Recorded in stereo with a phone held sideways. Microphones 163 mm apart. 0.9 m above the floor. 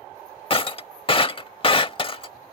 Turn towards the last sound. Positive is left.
turn(degrees=35)  # may be behind; listen again after turning